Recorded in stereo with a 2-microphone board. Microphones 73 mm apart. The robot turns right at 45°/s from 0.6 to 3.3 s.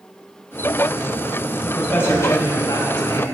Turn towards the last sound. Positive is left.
turn(degrees=90)